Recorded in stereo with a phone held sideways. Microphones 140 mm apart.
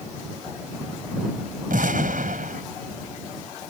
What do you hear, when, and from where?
1.7 s an explosion: 75° right (ahead or behind)